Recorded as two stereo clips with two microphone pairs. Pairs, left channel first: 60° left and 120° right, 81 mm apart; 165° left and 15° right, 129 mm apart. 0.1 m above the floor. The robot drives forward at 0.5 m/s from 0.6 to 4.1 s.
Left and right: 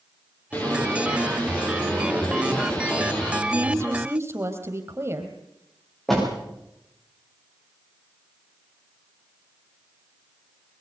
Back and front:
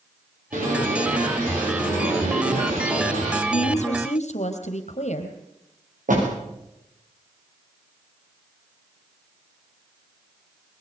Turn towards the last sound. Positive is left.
turn(degrees=-25)